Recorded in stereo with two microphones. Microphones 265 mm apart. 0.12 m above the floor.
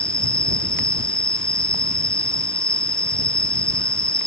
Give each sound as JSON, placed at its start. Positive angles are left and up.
{"t": 0.0, "sound": "an insect", "side_deg": -10}